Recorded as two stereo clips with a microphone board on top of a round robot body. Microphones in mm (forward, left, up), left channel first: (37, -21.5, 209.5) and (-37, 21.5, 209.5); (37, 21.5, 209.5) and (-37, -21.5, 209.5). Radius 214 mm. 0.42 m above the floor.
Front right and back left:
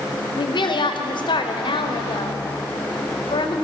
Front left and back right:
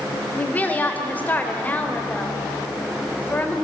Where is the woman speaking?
40° right, 2.5 m.